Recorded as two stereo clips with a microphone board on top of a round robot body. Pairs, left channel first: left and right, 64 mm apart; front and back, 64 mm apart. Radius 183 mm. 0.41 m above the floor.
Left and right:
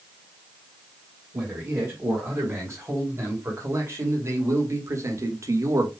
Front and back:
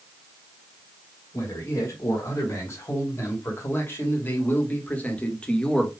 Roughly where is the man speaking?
Ahead right.